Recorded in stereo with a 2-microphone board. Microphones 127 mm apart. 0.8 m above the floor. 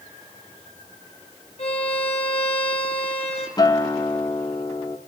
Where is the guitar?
30° left (ahead or behind), 0.9 m.